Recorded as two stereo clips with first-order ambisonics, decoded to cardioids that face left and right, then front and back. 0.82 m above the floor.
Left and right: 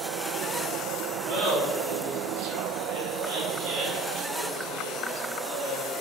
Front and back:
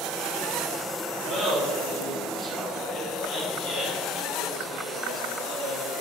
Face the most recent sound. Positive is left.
turn(degrees=-30)